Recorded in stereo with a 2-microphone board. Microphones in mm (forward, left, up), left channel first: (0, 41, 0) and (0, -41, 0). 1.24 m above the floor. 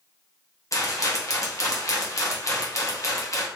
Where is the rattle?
45° left (ahead or behind), 0.7 m.